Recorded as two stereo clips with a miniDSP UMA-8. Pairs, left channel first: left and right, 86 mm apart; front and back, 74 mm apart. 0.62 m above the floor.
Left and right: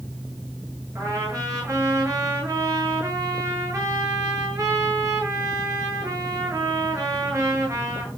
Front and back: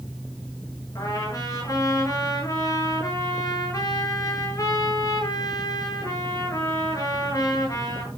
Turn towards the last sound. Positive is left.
turn(degrees=-40)